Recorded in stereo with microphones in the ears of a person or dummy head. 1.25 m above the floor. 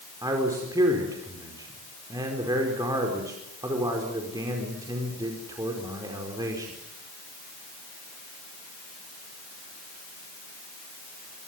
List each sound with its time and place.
0.2 s a man speaking: 15° right (ahead or behind), 4.5 m